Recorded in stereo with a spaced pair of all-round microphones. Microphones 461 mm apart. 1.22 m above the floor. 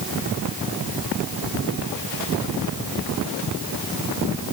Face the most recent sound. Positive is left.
No sound to turn to.